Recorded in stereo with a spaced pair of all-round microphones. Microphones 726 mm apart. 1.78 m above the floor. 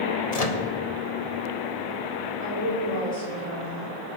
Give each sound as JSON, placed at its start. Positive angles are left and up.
{"t": 0.3, "sound": "a microwave", "side_deg": 55, "distance_m": 1.4}
{"t": 2.4, "sound": "a woman speaking", "side_deg": 50, "distance_m": 8.5}